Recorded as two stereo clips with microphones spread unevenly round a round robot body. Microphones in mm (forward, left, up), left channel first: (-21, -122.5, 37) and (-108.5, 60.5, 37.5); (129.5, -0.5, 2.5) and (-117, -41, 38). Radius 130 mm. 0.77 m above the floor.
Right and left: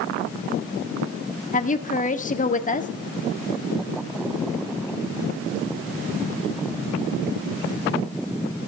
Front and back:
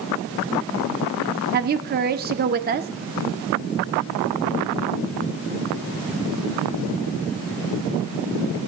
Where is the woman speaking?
115° right, 1.4 m.